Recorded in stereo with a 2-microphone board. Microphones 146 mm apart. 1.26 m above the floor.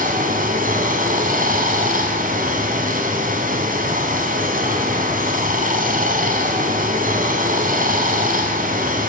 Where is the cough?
No cough in this recording.